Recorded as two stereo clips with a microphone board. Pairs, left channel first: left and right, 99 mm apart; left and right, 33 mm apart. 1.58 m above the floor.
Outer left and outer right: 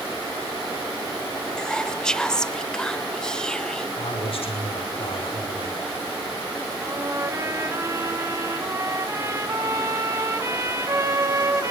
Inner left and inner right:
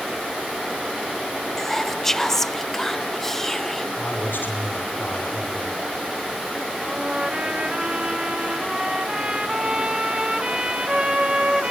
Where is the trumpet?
30° right (ahead or behind), 2 m.